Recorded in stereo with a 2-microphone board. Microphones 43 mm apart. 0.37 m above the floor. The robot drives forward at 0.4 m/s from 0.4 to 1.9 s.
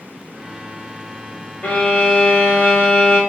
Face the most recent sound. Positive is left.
turn(degrees=25)  # may be behind; listen again after turning